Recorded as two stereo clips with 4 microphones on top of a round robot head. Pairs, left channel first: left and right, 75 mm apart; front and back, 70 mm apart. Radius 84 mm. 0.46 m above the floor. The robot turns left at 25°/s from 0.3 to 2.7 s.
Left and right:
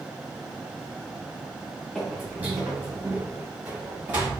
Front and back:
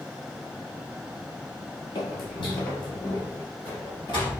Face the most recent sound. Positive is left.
turn(degrees=-30)